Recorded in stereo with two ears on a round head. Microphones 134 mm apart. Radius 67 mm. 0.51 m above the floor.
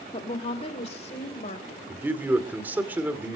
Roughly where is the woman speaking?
Left.